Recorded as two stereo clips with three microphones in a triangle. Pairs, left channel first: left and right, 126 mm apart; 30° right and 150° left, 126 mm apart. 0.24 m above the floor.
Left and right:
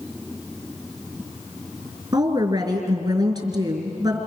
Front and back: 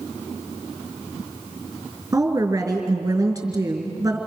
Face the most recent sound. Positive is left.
turn(degrees=-145)